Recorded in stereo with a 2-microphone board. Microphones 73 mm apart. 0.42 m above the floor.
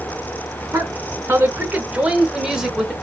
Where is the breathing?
No breathing in this recording.